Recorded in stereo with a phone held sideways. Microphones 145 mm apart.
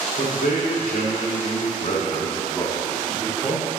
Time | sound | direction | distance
0.2 | a man speaking | 80° left | 2.5 m